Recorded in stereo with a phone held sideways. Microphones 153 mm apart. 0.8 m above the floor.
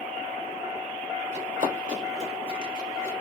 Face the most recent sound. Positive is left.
turn(degrees=-15)  # may be behind; listen again after turning